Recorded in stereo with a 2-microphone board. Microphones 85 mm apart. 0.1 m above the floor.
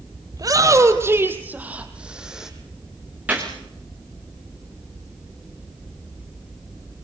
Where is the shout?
45° right (ahead or behind), 2.5 m; by 2.5 s 5° right (ahead or behind), 4 m.